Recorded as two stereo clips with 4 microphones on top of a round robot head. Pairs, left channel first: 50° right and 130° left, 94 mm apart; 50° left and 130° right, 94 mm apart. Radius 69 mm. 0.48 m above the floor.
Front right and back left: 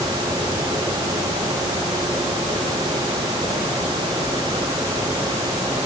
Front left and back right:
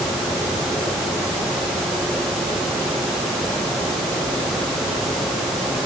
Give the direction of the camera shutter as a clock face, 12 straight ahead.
No camera shutter in this recording.